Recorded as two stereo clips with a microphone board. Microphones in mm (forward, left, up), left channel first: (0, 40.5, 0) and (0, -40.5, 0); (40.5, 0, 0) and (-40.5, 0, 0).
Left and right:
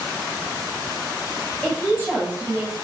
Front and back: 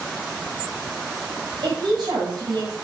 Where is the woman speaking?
160° left, 5 m; by 2.8 s 150° left, 5 m.